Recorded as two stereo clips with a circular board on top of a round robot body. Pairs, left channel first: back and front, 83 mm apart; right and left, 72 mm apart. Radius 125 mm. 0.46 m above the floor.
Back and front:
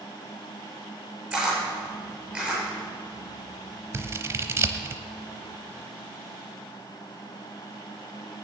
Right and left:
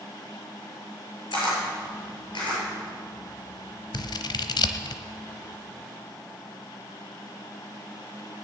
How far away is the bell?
I don't hear a bell.